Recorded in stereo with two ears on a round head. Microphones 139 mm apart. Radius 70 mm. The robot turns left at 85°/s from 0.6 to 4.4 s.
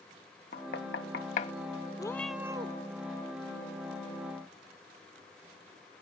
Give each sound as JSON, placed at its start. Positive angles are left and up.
{"t": 0.5, "sound": "knocking", "side_deg": 65}
{"t": 2.0, "sound": "a cat meowing", "azimuth_deg": 25}